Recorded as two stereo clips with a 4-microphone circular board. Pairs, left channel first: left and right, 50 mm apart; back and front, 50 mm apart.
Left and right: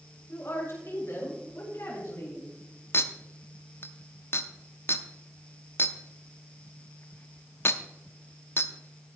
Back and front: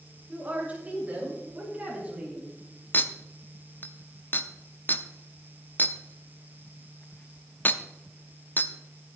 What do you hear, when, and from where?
0.3 s a woman speaking: 50° left, 7 m; by 2.5 s 60° left, 6.5 m
2.9 s a clink: 130° left, 0.6 m